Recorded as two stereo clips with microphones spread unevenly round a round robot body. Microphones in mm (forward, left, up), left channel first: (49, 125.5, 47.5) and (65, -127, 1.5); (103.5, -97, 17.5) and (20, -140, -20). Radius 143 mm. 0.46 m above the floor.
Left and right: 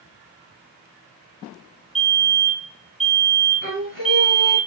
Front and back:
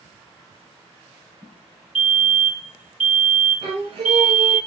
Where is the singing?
150° left, 3.5 m.